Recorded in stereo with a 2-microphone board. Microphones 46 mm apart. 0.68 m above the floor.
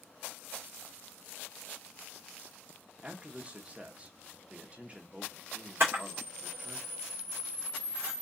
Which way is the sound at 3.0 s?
25° right (ahead or behind).